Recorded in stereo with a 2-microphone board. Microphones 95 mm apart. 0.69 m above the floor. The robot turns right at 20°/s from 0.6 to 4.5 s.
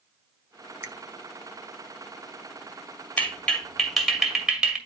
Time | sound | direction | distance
0.8 | a finger snap | 30° right (ahead or behind) | 1.0 m
3.2 | a clap | 20° left (ahead or behind) | 2 m